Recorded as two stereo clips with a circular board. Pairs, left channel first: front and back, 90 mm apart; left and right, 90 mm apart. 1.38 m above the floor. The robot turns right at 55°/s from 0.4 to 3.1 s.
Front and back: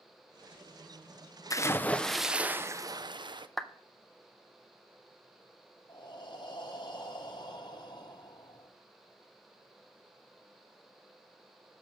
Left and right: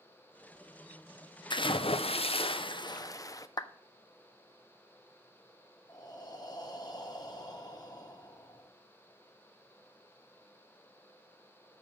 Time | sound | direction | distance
1.5 | a splash | 55° left | 0.6 m
3.6 | a clap | 85° left | 0.6 m
5.9 | breathing | 45° left | 1.0 m